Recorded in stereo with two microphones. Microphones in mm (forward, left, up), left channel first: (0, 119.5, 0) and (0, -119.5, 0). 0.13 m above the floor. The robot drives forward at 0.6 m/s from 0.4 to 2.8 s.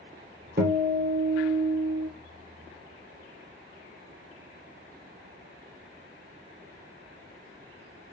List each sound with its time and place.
0.6 s a guitar: 45° right (ahead or behind), 1.2 m; by 2.1 s 25° right (ahead or behind), 1.9 m